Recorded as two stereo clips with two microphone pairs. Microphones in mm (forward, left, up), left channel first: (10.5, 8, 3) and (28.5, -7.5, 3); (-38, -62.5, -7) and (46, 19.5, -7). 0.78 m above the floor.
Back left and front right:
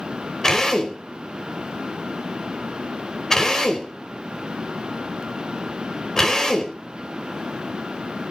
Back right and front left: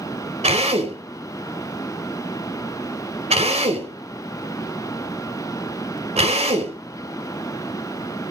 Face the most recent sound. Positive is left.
turn(degrees=70)